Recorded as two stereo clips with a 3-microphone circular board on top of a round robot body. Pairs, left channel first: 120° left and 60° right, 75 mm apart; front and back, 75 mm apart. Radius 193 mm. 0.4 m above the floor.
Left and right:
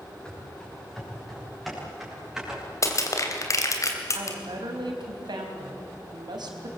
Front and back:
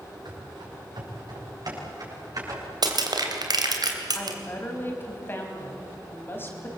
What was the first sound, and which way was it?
Running footsteps, 160° right.